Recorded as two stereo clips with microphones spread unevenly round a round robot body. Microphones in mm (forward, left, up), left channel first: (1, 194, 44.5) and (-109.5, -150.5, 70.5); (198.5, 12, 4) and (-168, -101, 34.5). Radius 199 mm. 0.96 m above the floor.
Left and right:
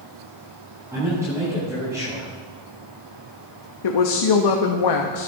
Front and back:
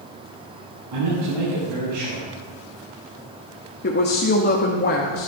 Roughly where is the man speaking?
Behind.